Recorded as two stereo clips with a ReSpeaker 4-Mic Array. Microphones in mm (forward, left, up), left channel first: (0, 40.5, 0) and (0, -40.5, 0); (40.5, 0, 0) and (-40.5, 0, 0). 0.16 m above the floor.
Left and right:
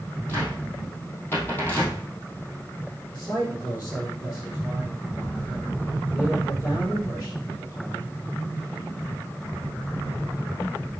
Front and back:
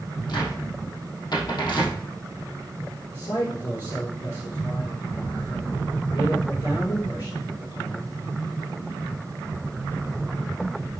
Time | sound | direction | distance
0.3 | a cupboard door | 25° left | 2.5 m
3.1 | a man speaking | 25° left | 4 m